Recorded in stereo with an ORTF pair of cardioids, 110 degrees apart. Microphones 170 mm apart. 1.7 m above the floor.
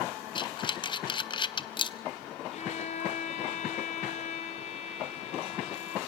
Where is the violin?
40° left, 1.8 m.